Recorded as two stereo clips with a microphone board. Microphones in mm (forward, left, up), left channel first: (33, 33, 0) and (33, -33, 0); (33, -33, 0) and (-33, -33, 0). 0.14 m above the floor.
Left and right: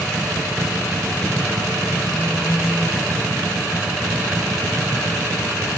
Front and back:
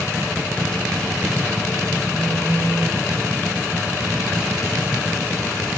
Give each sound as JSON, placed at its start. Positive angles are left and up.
{"t": 2.1, "sound": "a phone buzzing", "azimuth_deg": 30, "distance_m": 5.5}